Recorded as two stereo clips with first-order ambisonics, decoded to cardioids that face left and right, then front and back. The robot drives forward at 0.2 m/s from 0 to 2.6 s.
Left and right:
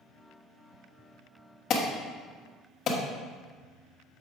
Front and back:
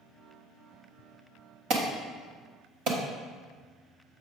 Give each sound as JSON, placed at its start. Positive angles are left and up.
{"t": 1.7, "sound": "an alarm", "azimuth_deg": 140, "distance_m": 1.4}